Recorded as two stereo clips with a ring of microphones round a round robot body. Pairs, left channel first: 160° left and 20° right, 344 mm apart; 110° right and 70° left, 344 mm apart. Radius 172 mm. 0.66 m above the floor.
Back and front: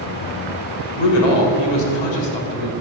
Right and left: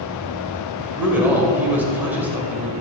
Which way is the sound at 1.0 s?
150° left.